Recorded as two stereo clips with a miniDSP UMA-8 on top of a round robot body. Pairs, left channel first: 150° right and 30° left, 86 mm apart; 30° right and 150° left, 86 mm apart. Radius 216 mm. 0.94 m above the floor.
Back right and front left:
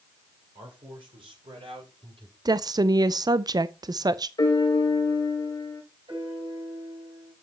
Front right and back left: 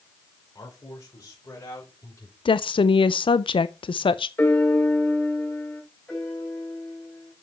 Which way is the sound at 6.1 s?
50° left.